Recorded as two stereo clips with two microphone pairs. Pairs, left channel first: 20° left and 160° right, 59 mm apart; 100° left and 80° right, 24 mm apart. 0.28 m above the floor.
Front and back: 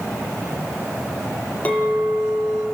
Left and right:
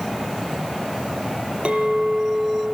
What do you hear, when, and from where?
1.6 s a clink: 45° right, 5 m